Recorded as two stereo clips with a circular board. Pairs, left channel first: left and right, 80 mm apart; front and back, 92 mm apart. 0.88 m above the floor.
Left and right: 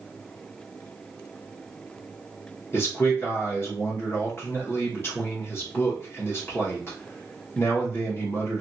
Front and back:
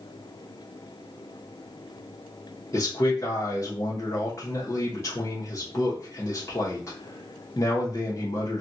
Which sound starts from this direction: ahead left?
A man speaking, at 2.7 s.